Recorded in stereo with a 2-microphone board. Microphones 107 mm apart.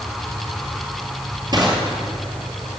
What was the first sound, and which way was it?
Crushing, 40° right (ahead or behind).